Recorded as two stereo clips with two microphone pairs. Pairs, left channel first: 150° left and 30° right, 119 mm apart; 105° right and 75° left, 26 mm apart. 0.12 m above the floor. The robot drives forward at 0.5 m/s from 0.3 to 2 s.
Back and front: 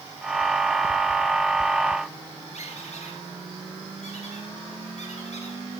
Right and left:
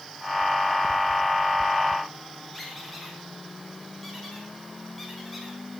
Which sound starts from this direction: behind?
A squeak, at 2.5 s.